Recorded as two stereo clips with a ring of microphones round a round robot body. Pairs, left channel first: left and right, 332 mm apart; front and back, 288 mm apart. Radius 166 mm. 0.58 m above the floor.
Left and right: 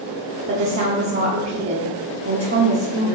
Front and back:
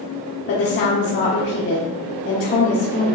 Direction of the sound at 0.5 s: 40° right.